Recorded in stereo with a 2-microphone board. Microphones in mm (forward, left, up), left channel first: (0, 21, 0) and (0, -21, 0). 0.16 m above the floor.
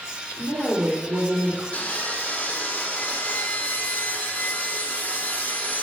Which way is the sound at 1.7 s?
35° left (ahead or behind).